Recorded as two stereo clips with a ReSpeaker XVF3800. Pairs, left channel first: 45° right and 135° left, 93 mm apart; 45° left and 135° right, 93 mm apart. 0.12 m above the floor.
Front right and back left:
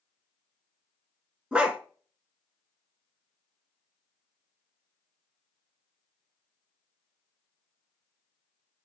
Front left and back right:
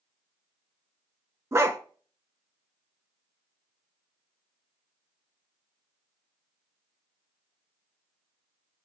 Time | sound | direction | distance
1.5 | a dog barking | 155° right | 0.5 m